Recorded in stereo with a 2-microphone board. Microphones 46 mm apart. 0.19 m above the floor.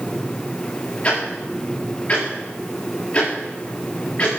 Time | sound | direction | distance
1.0 | ticking | 35° left (ahead or behind) | 8 m